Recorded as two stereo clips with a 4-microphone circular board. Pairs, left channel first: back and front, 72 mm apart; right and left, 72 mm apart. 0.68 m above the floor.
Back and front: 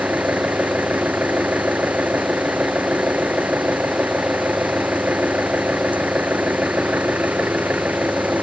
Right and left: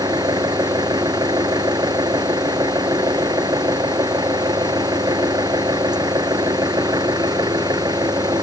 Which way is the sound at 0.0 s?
70° left.